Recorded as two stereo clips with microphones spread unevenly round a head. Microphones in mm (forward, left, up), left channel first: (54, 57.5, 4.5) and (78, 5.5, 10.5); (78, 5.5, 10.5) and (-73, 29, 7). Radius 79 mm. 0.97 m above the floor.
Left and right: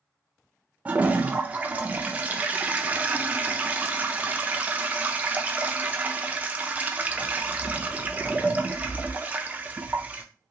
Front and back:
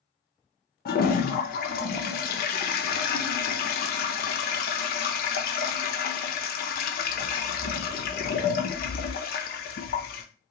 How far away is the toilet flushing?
About 0.6 m.